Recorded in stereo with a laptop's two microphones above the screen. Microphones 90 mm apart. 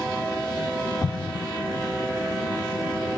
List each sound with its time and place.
1.0 s an explosion: 40° left (ahead or behind), 0.6 m